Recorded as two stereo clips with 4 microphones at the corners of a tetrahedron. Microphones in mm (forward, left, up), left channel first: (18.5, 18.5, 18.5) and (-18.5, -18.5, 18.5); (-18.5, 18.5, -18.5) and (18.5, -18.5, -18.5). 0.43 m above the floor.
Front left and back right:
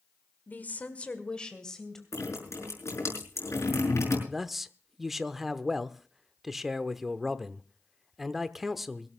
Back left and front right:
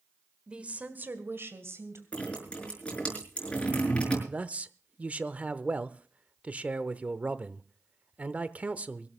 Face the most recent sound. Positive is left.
turn(degrees=-50)